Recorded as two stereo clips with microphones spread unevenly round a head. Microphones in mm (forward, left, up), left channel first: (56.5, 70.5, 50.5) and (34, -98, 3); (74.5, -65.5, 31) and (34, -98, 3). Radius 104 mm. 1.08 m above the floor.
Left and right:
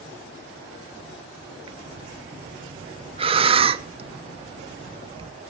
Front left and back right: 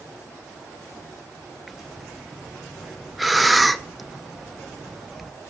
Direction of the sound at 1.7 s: 85° right.